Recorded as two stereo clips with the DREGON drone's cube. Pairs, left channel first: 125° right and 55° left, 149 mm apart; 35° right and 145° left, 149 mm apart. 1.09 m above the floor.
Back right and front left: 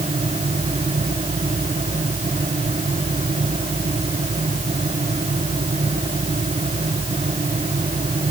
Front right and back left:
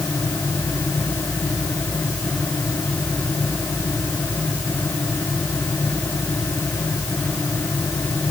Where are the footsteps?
No footsteps in this recording.